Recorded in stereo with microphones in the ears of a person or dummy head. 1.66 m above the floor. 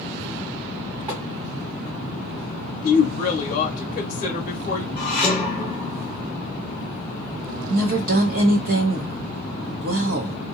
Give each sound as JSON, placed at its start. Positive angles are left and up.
{"t": 1.1, "sound": "tapping", "side_deg": -20, "distance_m": 2.0}
{"t": 2.8, "sound": "a woman speaking", "side_deg": 45, "distance_m": 0.7}
{"t": 5.0, "sound": "dishes clattering", "side_deg": 5, "distance_m": 0.9}
{"t": 7.7, "sound": "a woman speaking", "side_deg": -50, "distance_m": 0.9}